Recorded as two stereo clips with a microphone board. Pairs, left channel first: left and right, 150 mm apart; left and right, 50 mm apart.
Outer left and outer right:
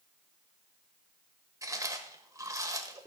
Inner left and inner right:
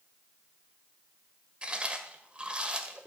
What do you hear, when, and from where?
1.6 s chewing: 20° right (ahead or behind), 1.4 m